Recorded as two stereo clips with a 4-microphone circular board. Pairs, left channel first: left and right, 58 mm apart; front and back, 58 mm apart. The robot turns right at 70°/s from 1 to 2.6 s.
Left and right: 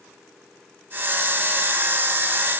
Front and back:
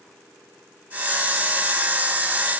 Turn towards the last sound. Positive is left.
No sound to turn to.